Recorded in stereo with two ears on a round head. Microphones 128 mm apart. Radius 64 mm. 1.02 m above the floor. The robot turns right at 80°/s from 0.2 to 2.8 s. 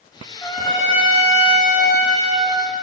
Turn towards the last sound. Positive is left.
turn(degrees=-155)